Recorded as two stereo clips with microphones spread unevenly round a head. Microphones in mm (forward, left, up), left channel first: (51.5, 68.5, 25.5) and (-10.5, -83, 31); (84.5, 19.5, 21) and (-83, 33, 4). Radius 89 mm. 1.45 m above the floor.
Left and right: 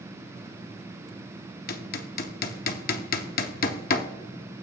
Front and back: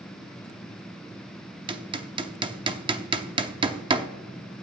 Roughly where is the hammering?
Left.